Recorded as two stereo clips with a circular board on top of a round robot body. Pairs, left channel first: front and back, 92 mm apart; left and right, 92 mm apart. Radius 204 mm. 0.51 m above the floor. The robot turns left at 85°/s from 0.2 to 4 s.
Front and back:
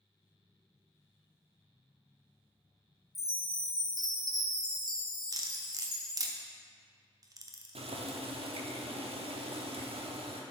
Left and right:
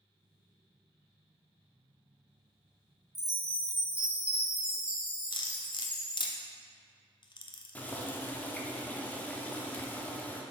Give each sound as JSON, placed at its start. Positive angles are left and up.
{"t": 3.1, "sound": "a chime", "azimuth_deg": -90, "distance_m": 1.5}
{"t": 5.3, "sound": "cutlery clinking", "azimuth_deg": 125, "distance_m": 0.7}
{"t": 7.8, "sound": "boiling", "azimuth_deg": 165, "distance_m": 0.8}